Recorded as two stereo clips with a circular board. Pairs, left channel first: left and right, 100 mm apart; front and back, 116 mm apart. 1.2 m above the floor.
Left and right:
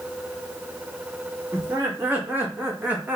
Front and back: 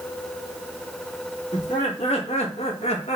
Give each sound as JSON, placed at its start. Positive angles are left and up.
{"t": 1.5, "sound": "laughter", "azimuth_deg": -20, "distance_m": 2.5}